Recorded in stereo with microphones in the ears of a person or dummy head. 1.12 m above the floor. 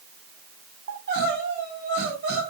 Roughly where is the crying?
Right.